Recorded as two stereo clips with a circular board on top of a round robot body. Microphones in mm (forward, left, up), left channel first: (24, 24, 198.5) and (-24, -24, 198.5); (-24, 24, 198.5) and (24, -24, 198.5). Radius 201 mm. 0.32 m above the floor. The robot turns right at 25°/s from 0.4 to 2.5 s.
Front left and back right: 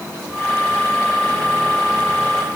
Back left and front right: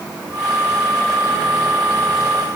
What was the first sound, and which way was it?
Only background noise.